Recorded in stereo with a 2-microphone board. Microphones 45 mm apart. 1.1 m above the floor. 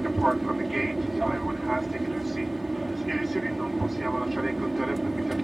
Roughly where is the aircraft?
Centre.